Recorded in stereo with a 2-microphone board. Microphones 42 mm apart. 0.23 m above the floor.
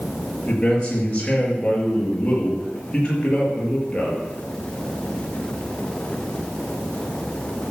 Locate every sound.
0.5 s a man speaking: 25° left (ahead or behind), 5.5 m